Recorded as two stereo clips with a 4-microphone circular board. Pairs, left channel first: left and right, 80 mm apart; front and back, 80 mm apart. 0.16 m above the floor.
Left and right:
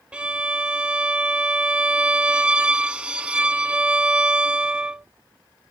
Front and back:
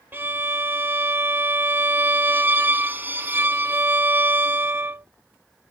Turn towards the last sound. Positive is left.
turn(degrees=-155)